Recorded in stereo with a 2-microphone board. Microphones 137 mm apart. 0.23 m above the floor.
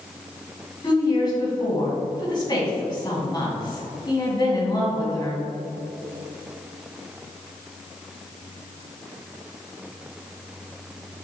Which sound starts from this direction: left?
A woman speaking, at 0.8 s.